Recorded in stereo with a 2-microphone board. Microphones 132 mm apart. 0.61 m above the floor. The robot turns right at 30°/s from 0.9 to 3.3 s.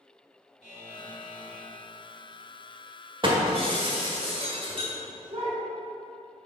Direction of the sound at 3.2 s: 40° right (ahead or behind).